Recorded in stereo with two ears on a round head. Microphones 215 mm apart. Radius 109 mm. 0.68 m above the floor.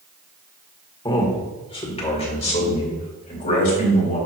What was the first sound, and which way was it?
A man speaking, 20° left (ahead or behind).